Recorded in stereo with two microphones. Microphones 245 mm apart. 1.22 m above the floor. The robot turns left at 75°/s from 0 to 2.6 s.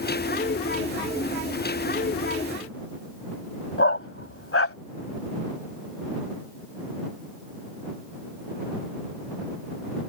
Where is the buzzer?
I don't hear a buzzer.